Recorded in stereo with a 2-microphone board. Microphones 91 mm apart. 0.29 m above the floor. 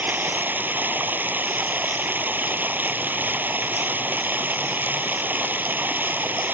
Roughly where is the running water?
Right.